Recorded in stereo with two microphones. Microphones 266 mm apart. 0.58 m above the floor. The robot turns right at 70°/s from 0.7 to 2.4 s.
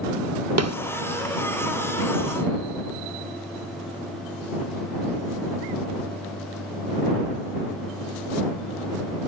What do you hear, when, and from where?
0.6 s a snare drum: 75° right (ahead or behind)